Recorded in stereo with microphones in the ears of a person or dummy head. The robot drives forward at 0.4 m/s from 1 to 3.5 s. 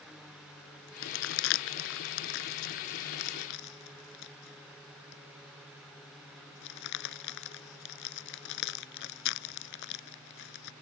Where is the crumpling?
75° left (ahead or behind); by 10.7 s 65° left (ahead or behind).